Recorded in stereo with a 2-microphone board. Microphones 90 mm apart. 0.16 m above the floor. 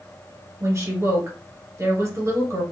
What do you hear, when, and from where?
0.6 s a woman speaking: 35° right (ahead or behind), 2.0 m